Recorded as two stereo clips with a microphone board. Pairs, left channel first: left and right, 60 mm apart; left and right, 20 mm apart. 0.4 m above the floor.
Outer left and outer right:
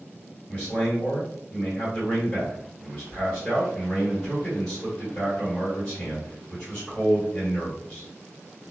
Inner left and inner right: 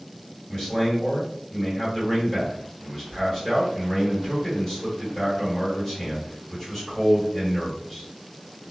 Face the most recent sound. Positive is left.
turn(degrees=10)  # may be behind; listen again after turning